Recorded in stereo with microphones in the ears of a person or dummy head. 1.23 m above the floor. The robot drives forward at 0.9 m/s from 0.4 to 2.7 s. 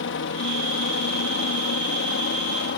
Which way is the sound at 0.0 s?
60° left (ahead or behind).